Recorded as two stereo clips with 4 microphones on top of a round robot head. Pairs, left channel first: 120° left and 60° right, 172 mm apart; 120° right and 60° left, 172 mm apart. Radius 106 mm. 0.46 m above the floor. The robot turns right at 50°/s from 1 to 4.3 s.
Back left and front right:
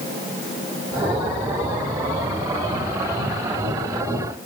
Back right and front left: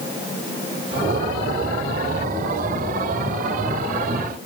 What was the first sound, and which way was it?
Only background noise.